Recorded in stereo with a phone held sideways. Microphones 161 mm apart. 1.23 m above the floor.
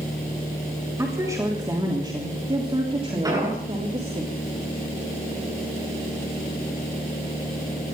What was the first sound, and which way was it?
A woman speaking, 20° right (ahead or behind).